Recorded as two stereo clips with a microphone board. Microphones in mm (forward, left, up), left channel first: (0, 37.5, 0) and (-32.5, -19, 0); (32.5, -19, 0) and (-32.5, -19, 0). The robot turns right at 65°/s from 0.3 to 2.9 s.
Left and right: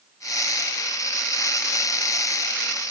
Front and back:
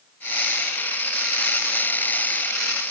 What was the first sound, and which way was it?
Only background noise.